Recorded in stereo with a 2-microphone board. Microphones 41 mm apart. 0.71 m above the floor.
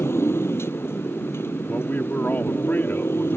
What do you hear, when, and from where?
0.0 s a motorcycle: 90° left; by 3.4 s 75° left (ahead or behind)
1.7 s a man speaking: 50° left (ahead or behind)